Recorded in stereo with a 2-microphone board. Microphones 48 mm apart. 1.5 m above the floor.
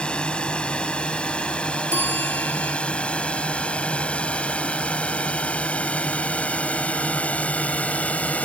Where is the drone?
20° left (ahead or behind); by 8.5 s 30° left (ahead or behind).